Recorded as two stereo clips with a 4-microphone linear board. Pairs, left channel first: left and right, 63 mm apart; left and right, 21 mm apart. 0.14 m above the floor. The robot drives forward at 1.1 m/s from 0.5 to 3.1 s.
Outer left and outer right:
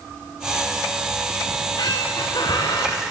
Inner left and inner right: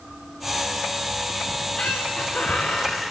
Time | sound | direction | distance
1.5 | a squeak | 65° left (ahead or behind) | 4.5 m